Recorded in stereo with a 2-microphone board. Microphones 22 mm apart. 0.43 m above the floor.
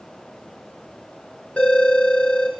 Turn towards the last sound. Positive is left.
turn(degrees=70)  # may be behind; listen again after turning